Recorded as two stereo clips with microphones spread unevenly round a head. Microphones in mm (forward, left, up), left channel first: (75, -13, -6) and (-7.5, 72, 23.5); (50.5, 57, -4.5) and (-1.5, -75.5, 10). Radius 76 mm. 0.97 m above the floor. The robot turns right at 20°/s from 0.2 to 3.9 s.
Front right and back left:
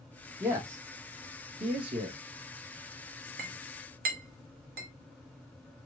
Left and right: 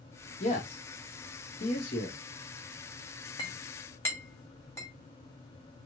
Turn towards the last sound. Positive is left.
turn(degrees=145)